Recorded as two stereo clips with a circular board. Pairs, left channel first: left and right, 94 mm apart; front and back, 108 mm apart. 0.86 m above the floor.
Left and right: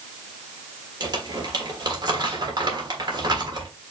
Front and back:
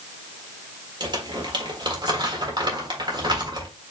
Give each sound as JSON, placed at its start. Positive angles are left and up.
{"t": 1.0, "sound": "crumpling", "azimuth_deg": -130, "distance_m": 1.4}